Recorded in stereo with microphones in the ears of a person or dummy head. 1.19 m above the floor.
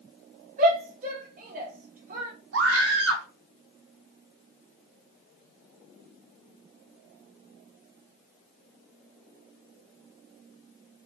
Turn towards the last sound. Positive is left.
turn(degrees=-75)  # may be behind; listen again after turning